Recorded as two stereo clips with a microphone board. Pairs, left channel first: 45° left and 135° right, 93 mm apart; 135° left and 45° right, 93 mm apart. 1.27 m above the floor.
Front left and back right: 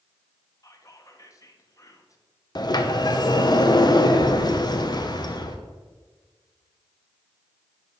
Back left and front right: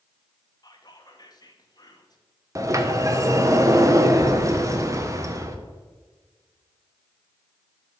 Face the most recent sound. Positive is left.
turn(degrees=10)